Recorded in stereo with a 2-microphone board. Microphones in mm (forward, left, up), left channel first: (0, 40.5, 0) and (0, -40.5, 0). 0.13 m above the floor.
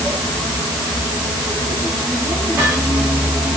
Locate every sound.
Only background noise.